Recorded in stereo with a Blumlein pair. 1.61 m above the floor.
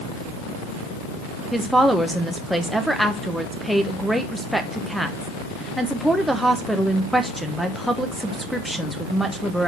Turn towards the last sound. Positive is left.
turn(degrees=0)